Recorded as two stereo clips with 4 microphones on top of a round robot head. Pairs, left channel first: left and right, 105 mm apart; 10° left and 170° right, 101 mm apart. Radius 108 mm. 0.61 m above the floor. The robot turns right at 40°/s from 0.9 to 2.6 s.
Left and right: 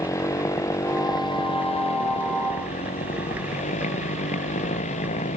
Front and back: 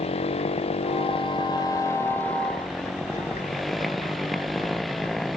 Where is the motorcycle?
30° left; by 5.4 s 95° left.